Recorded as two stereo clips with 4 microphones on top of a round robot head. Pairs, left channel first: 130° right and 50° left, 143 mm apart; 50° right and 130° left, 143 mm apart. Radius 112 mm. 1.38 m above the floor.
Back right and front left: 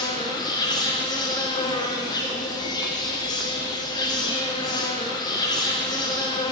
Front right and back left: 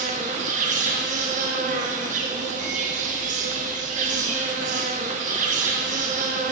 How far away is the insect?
About 0.8 m.